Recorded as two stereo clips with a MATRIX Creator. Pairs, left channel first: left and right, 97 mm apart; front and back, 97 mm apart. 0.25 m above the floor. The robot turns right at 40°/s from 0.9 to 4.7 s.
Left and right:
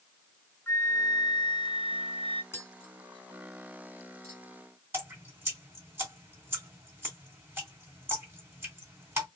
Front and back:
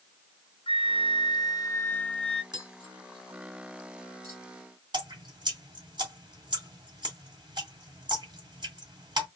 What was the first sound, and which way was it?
A flute, 25° left.